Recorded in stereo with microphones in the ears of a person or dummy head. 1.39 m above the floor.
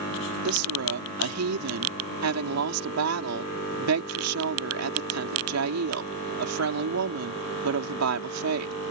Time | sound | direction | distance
0.5 | a woman speaking | 85° right | ?